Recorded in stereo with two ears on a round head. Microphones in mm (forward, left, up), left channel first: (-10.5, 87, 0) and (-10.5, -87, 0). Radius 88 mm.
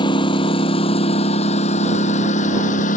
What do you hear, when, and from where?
0.0 s a lawn mower: 25° left (ahead or behind); by 3.0 s 40° left (ahead or behind)